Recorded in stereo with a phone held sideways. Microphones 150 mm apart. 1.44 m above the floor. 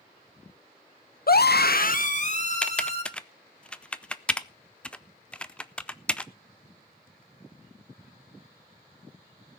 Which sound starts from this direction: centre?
Typing on a keyboard, at 2.6 s.